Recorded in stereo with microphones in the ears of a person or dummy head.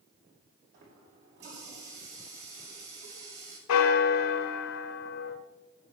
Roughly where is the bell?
Left.